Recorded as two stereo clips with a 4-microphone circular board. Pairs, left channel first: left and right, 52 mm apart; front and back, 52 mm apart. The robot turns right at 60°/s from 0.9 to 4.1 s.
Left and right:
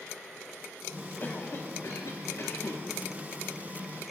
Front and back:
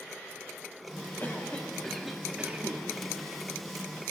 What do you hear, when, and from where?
1.2 s a cough: 45° left, 1.7 m; by 2.8 s 140° left, 1.7 m